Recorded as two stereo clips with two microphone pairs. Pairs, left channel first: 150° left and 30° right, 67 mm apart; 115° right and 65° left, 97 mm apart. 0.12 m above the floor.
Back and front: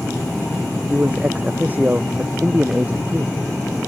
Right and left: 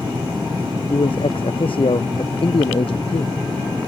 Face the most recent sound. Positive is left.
turn(degrees=-95)